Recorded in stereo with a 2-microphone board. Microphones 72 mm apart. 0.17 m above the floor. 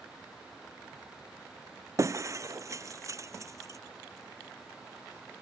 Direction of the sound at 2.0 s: 45° right (ahead or behind).